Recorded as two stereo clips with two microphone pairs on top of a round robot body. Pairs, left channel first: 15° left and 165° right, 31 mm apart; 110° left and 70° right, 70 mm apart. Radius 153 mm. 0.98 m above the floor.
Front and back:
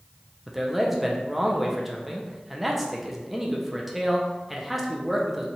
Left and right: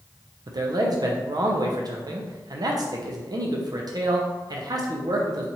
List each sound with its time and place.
0.5 s a man speaking: 80° right, 0.6 m